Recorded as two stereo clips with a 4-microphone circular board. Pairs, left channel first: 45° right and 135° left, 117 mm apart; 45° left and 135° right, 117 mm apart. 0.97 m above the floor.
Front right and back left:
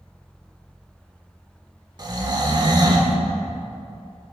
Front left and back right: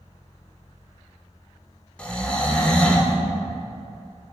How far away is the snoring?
About 0.7 m.